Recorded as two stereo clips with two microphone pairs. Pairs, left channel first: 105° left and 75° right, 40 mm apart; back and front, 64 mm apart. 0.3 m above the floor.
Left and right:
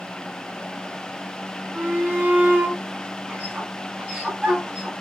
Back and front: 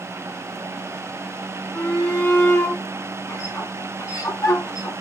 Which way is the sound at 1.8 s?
125° right.